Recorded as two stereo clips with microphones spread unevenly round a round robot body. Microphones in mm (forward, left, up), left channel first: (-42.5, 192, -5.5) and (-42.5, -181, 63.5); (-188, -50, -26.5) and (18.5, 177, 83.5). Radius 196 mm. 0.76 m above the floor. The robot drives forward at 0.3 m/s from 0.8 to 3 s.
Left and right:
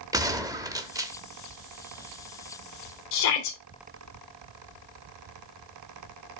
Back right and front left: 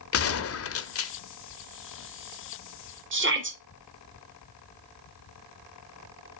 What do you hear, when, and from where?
0.1 s a gunshot: 175° right, 0.9 m
3.1 s a shout: 105° left, 2.5 m